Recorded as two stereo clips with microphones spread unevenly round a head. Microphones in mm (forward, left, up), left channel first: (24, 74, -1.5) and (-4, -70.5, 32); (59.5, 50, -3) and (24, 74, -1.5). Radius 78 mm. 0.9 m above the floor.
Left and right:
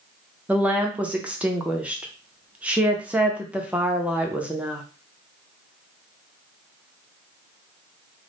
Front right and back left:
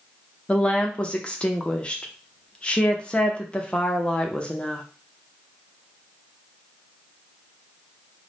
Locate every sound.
0.5 s a woman speaking: 5° right, 0.6 m